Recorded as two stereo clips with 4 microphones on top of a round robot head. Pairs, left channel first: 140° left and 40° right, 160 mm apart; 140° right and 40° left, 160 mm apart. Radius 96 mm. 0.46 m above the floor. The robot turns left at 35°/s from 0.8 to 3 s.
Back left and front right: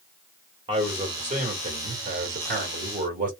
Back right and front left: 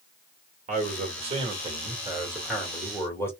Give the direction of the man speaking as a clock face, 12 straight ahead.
12 o'clock.